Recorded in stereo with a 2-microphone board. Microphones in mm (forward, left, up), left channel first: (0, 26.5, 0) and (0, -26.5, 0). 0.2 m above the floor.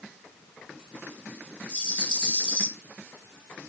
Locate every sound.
1.7 s a rattle: 25° left (ahead or behind), 3.5 m